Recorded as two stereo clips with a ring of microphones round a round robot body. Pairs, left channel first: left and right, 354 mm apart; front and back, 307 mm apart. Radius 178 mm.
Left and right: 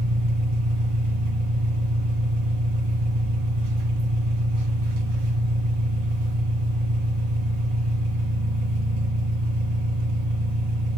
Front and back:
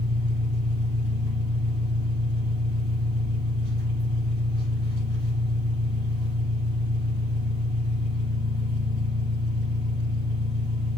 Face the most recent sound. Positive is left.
turn(degrees=-115)